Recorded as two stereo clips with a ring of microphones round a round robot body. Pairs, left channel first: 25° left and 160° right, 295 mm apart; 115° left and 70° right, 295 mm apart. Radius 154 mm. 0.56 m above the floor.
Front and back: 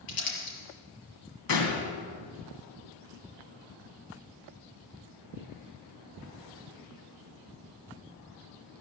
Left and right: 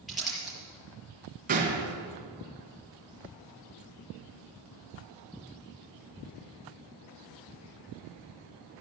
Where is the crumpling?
20° left, 5.5 m.